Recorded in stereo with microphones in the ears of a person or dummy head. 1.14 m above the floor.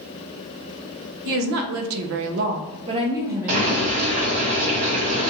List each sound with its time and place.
1.2 s a woman speaking: 65° right (ahead or behind), 0.7 m; by 4.0 s 5° right (ahead or behind), 1.0 m
3.5 s boiling: 45° right (ahead or behind), 1.4 m